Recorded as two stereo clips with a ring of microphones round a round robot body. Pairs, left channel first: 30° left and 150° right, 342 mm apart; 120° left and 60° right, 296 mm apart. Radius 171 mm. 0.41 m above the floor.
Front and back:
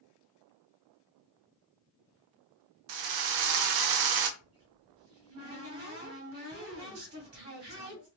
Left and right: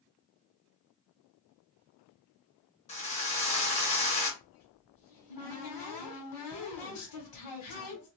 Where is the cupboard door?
145° left, 1.9 m.